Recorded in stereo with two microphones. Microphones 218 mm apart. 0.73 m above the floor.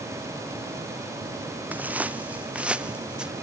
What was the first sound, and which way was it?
Footsteps, 5° right (ahead or behind).